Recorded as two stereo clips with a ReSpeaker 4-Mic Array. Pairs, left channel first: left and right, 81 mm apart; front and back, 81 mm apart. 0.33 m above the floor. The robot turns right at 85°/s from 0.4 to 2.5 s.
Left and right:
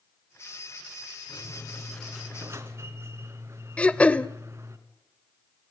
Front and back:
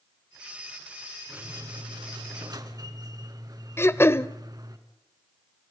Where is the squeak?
115° left, 2 m; by 4.8 s 145° right, 2 m.